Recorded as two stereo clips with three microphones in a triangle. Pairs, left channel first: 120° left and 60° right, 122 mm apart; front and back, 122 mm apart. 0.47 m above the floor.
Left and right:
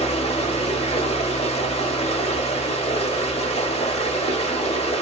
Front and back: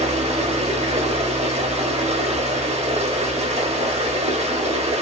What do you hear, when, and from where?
0.0 s running water: 155° left, 0.7 m